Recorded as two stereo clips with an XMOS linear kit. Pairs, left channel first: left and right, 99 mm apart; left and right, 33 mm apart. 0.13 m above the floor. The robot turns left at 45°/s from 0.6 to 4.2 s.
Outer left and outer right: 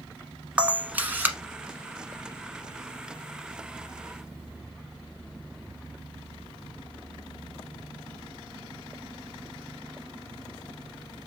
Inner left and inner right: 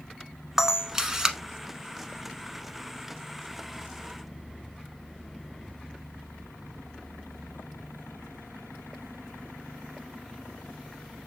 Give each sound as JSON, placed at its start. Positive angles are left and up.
{"t": 0.6, "sound": "a camera shutter", "side_deg": -15, "distance_m": 0.8}